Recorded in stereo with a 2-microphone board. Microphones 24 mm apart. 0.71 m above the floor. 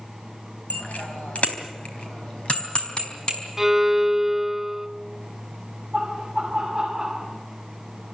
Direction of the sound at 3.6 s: 15° right (ahead or behind).